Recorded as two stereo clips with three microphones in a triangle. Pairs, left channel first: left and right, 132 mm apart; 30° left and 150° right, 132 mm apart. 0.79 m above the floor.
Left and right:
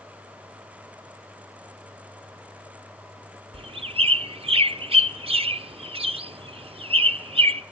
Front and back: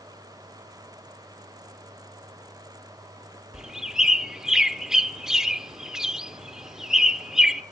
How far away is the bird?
About 0.5 m.